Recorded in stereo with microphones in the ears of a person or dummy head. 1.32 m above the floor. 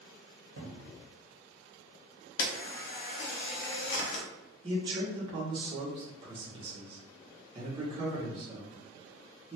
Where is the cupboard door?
75° right (ahead or behind), 1.0 m.